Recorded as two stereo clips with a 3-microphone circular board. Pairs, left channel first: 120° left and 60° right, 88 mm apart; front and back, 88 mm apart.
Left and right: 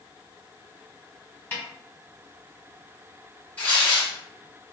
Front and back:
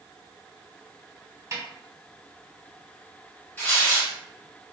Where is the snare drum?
175° left, 1.2 m.